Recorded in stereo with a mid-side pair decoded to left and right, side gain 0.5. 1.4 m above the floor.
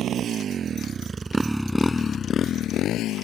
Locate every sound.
0.0 s a motorcycle: 60° right; by 3.2 s 70° left